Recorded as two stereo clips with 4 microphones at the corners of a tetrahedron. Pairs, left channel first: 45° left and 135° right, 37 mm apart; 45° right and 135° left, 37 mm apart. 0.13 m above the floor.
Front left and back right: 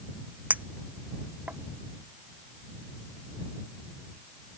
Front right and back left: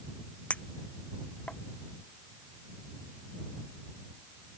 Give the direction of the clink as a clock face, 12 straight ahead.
3 o'clock.